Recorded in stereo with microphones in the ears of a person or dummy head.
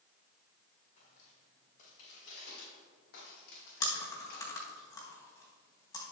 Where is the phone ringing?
I don't hear a phone ringing.